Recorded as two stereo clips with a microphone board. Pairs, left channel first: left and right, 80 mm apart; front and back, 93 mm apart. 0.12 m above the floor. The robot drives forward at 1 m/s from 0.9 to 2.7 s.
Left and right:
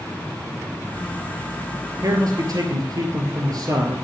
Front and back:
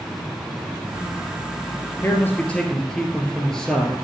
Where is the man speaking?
60° right, 2 m; by 4.0 s 85° right, 1.9 m.